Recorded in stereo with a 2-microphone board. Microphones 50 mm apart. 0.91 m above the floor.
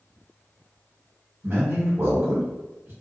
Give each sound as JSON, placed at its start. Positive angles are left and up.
{"t": 1.4, "sound": "a man speaking", "side_deg": -50, "distance_m": 1.3}